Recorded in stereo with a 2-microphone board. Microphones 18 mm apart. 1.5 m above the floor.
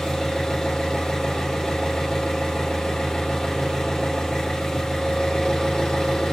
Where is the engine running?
60° left (ahead or behind), 1.4 m.